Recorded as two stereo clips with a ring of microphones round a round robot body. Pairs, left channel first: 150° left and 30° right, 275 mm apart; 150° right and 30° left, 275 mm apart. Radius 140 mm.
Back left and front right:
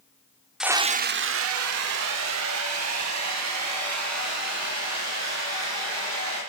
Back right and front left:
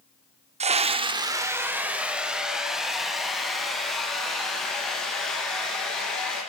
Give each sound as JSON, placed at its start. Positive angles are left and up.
{"t": 0.6, "sound": "a scream", "azimuth_deg": 55, "distance_m": 0.7}